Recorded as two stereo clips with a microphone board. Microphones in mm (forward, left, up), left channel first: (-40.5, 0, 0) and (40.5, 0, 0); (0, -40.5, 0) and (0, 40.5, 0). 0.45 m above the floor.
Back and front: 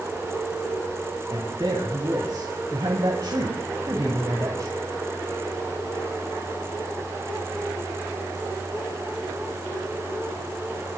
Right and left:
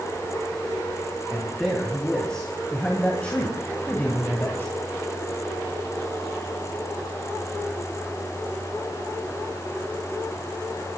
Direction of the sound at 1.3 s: 5° right.